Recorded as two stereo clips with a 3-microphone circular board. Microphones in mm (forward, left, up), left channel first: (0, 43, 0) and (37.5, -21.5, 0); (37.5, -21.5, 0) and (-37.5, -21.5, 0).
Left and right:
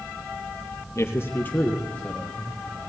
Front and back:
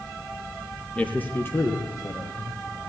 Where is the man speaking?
70° left, 3 m; by 2.6 s 35° left, 3.5 m.